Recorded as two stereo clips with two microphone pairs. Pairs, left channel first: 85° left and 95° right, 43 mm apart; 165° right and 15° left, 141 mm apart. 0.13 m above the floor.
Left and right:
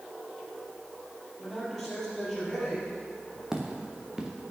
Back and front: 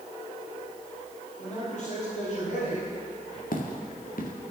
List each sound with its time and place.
1.4 s a man speaking: 170° left, 4.5 m
3.5 s footsteps: 170° right, 2 m